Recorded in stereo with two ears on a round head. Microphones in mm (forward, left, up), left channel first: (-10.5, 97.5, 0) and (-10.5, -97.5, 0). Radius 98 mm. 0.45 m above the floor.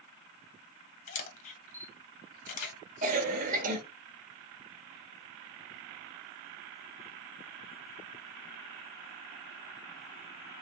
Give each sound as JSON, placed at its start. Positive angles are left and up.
{"t": 1.1, "sound": "a camera shutter", "side_deg": 40, "distance_m": 1.2}
{"t": 3.0, "sound": "a cough", "side_deg": -40, "distance_m": 1.1}